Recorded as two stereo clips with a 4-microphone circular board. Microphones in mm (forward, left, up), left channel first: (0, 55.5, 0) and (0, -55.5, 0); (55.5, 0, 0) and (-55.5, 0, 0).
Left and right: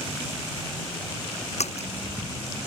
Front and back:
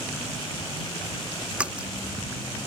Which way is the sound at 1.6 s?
100° left.